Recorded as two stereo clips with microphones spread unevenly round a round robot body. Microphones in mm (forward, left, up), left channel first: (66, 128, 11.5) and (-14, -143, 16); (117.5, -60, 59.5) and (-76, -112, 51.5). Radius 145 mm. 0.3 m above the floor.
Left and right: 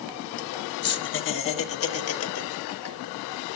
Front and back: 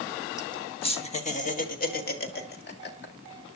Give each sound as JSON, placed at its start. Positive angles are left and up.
{"t": 0.4, "sound": "laughter", "azimuth_deg": 75, "distance_m": 1.4}